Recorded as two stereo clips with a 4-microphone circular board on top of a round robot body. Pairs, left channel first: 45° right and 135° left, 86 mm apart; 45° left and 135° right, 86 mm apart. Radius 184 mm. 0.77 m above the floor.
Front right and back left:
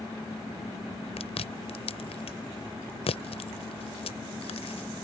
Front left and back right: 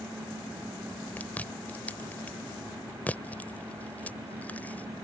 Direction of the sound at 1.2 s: 30° right.